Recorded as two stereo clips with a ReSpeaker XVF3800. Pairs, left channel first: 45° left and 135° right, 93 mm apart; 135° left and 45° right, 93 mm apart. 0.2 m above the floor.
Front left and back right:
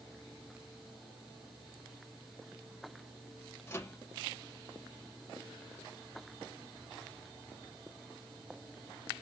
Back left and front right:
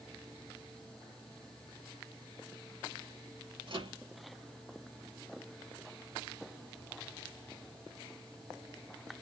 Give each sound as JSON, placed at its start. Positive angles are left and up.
{"t": 3.7, "sound": "a microwave", "azimuth_deg": -20, "distance_m": 3.5}